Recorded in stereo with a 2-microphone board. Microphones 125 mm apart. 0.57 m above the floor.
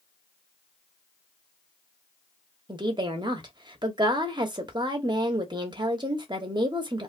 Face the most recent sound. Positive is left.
turn(degrees=-35)  # may be behind; listen again after turning